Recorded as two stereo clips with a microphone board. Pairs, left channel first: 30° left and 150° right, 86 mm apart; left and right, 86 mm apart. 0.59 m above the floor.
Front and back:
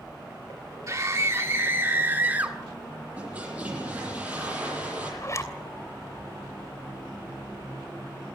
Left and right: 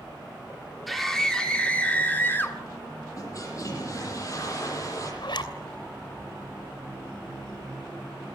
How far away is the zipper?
About 3 m.